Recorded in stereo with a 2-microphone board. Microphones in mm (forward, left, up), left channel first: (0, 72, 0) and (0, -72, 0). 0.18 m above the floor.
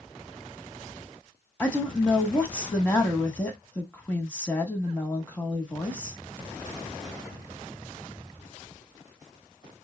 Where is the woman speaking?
10° left (ahead or behind), 1.2 m.